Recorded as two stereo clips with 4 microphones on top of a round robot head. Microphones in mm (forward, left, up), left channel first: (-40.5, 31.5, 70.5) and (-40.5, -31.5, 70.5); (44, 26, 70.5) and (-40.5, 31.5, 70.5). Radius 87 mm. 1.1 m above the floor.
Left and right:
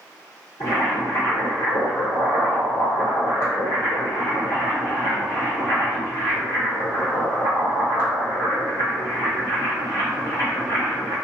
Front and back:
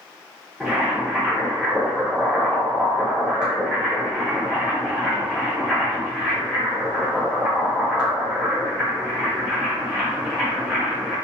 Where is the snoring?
I don't hear snoring.